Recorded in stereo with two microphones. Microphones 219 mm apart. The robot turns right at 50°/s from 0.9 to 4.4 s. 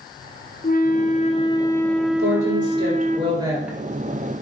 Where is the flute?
120° left, 1.0 m; by 3.2 s 125° right, 1.0 m.